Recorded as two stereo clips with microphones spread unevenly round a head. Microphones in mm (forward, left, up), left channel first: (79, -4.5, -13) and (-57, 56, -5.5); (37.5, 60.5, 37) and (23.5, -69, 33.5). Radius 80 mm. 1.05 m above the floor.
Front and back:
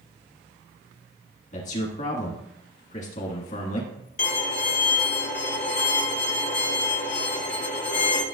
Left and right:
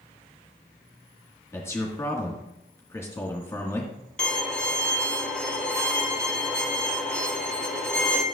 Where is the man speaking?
15° left, 1.6 m.